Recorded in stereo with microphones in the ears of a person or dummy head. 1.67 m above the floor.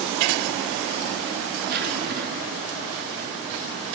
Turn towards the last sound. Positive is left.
turn(degrees=-55)  # may be behind; listen again after turning